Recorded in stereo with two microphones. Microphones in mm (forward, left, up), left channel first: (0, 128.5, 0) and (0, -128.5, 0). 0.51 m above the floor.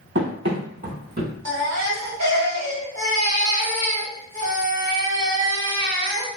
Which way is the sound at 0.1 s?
45° right (ahead or behind).